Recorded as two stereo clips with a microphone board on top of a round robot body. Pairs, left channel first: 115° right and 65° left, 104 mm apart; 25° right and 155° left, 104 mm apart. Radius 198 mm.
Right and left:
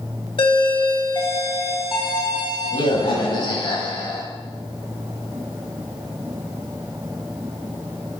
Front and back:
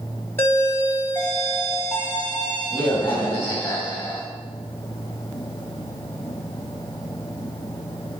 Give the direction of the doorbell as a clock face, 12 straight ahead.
3 o'clock.